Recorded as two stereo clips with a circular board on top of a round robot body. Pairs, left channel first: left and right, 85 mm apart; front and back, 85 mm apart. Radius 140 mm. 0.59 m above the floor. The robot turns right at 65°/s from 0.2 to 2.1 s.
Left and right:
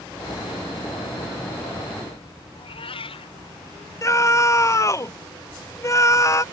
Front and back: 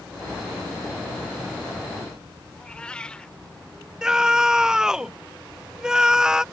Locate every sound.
2.5 s a cat meowing: 80° left
4.0 s a scream: 100° left